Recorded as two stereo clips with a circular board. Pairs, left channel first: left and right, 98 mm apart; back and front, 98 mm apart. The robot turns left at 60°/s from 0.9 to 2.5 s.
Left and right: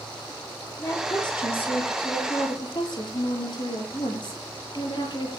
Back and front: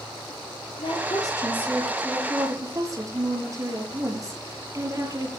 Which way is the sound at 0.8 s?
150° left.